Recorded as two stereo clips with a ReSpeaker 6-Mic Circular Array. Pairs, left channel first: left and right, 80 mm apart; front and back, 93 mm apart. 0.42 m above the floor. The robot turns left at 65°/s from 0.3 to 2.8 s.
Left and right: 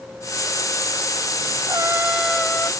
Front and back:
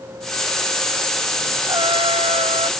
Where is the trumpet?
140° right; by 2.7 s 155° left.